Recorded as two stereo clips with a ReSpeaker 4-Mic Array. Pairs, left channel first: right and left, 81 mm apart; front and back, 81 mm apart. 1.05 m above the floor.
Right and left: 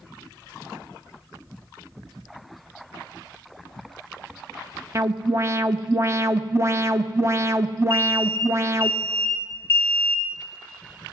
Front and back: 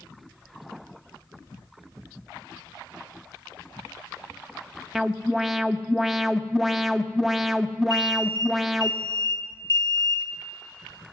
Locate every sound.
5.0 s an alarm: 95° left, 0.9 m
7.9 s an alarm: 35° right, 2.5 m